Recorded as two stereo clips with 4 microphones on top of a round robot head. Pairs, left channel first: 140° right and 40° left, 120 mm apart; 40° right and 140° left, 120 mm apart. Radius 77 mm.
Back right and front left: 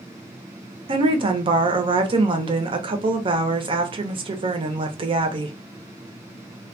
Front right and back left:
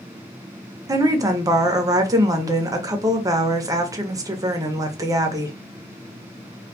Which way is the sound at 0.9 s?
80° left.